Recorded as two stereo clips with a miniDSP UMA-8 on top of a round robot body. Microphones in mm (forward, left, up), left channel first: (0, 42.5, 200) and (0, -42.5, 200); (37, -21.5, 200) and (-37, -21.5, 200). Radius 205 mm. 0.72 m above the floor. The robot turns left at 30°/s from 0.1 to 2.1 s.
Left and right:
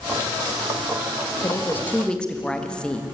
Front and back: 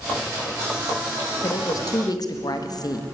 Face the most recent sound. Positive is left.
turn(degrees=10)